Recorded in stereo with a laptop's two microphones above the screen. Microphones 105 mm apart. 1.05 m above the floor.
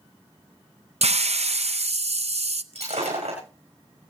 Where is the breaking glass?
80° right, 7 m.